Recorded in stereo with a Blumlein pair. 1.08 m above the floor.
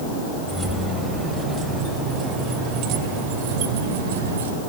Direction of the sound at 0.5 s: 10° right.